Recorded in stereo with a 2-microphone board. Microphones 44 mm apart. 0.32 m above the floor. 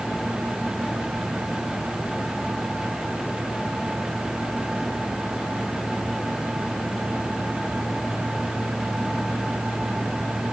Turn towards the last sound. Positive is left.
No sound to turn to.